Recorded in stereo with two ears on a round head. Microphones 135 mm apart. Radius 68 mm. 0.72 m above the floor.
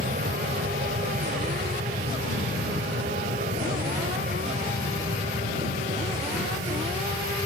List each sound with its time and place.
0.0 s an aircraft: 55° right (ahead or behind); by 7.5 s 50° right (ahead or behind)